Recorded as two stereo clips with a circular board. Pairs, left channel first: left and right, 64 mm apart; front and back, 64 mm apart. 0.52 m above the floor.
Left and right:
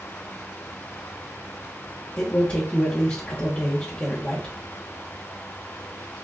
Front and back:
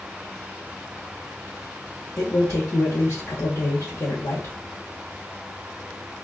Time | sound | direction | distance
2.2 | a man speaking | 35° left | 1.1 m